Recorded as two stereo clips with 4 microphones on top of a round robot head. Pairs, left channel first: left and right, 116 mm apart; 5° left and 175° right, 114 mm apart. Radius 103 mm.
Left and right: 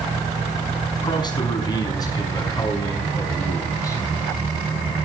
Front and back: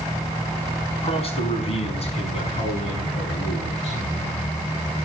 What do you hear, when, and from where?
1.0 s a man speaking: 40° left, 5.5 m; by 4.0 s 25° left, 7 m